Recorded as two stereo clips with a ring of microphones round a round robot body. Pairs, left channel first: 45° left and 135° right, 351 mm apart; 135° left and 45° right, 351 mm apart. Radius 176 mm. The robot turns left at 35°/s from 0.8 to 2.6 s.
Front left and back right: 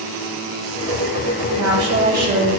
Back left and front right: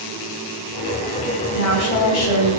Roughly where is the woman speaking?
Behind.